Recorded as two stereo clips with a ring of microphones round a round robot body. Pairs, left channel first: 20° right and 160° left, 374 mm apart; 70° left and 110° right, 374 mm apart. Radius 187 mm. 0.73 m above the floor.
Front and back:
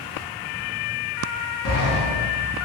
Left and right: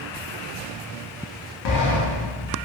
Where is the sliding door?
35° left, 0.6 m.